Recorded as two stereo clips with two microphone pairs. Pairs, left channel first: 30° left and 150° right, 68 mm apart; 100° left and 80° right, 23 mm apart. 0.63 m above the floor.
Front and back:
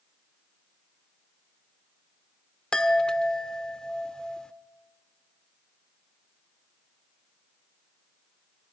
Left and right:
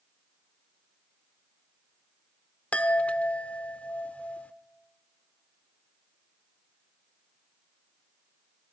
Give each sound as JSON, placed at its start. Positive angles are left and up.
{"t": 2.7, "sound": "a chime", "azimuth_deg": 105, "distance_m": 0.9}